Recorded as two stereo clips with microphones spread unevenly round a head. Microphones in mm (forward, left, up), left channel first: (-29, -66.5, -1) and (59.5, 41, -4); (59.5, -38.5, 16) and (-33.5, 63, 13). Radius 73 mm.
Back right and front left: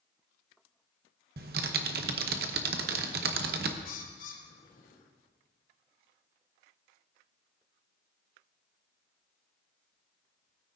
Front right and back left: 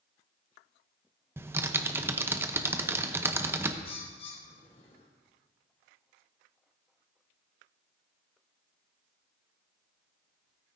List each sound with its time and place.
1.4 s typing on a keyboard: 60° left, 0.8 m
3.9 s a bird: 100° right, 1.3 m